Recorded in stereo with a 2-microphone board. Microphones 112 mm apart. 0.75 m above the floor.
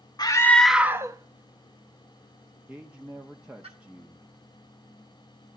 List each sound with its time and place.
0.2 s a scream: 35° left (ahead or behind), 0.5 m; by 3.7 s 55° right (ahead or behind), 2.5 m
2.7 s a man speaking: 10° right (ahead or behind), 0.9 m